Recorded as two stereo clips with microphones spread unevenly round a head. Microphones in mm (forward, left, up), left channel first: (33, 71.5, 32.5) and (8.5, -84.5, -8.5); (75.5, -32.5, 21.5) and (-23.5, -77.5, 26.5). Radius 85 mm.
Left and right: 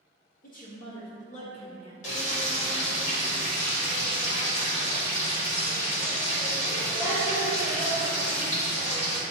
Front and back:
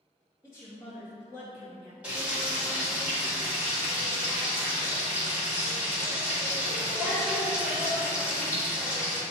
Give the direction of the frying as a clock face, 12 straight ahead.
8 o'clock.